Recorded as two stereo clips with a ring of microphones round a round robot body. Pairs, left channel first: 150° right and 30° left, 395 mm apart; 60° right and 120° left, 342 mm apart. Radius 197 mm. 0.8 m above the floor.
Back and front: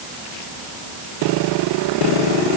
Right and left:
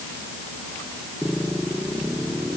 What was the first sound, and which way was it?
Only background noise.